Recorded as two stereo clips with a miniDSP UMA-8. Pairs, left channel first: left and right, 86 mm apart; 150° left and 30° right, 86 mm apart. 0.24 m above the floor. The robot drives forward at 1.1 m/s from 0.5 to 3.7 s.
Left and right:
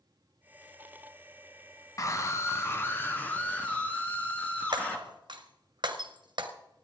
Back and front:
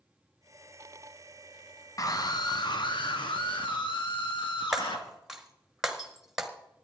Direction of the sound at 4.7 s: 115° right.